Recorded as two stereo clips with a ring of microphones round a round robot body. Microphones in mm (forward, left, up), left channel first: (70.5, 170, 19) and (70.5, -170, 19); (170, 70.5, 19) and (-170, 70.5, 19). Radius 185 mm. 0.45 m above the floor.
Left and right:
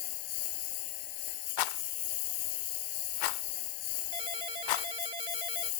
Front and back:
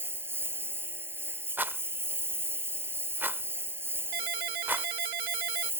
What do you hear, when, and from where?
0.0 s a lawn mower: 95° left
1.6 s a rattle: 95° left
4.1 s a ringtone: 165° right